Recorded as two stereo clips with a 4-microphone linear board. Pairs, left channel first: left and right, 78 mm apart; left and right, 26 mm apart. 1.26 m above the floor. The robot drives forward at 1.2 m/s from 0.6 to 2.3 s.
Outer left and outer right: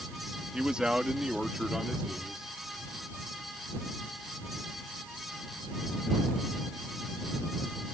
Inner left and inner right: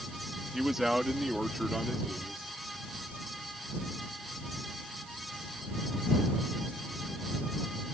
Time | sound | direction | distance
0.5 | a man speaking | 10° right (ahead or behind) | ?